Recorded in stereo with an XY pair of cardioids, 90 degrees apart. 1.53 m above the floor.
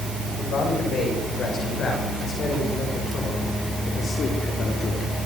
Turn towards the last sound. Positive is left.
turn(degrees=60)